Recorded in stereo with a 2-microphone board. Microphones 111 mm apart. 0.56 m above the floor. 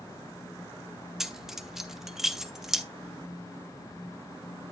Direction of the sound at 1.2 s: 5° right (ahead or behind).